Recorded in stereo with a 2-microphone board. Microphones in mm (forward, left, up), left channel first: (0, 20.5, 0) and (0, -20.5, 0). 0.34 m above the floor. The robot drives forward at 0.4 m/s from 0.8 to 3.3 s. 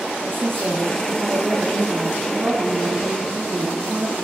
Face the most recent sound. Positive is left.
turn(degrees=-65)  # may be behind; listen again after turning